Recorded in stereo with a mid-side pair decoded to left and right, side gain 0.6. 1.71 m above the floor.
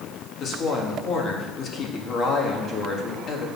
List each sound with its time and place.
0.4 s a woman speaking: 45° left, 2.5 m